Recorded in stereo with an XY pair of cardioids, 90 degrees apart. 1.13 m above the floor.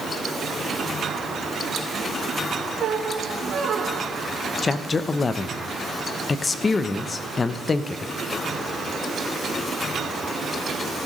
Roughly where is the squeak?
Ahead right.